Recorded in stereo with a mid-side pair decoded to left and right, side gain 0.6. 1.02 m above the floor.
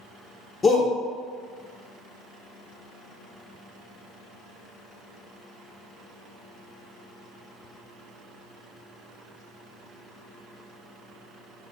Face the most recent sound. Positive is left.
turn(degrees=30)